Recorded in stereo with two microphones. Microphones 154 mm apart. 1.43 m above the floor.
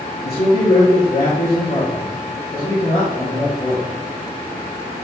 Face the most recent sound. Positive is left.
turn(degrees=80)